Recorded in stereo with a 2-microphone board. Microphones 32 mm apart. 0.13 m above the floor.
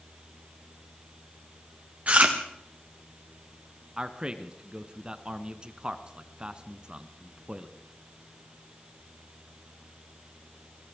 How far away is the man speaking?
About 1.3 m.